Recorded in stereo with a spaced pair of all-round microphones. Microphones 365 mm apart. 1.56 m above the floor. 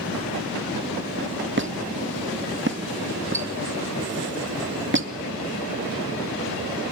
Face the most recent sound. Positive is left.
turn(degrees=-30)  # may be behind; listen again after turning